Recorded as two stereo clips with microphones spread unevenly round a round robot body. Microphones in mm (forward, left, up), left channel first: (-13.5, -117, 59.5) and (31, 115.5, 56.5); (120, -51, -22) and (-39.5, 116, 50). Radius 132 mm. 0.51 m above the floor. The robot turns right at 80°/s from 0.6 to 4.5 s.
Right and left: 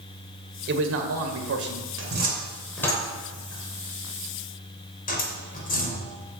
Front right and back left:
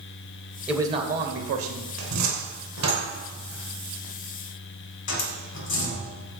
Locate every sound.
0.7 s a man speaking: 40° left, 2 m; by 1.9 s 135° left, 2 m
2.0 s a cupboard door: 110° left, 3 m; by 6.2 s 50° right, 3 m